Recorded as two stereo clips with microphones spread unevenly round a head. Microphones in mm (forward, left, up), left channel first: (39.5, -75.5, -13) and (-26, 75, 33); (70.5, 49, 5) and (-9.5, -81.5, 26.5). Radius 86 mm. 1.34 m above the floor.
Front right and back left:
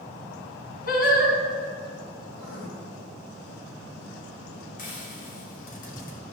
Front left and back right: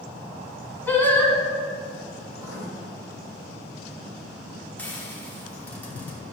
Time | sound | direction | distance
0.9 | singing | 25° right | 2.5 m
2.3 | writing | 55° right | 2 m
4.8 | frying | 25° right | 3 m